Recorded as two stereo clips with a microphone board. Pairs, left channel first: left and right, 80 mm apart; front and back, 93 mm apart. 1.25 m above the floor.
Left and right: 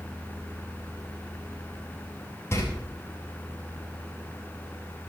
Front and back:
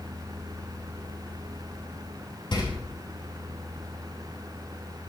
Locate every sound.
2.5 s a door slam: 35° left, 6.5 m